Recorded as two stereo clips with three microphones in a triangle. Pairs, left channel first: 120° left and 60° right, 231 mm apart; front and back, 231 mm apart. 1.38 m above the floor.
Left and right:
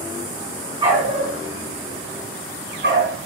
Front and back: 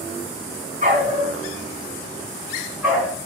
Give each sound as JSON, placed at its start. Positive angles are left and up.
{"t": 0.8, "sound": "a dog barking", "azimuth_deg": -130, "distance_m": 3.0}